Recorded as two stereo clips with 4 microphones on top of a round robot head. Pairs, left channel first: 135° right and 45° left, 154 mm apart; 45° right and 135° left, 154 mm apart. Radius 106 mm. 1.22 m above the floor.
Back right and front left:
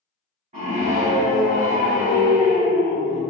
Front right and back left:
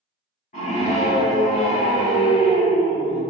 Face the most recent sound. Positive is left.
turn(degrees=-5)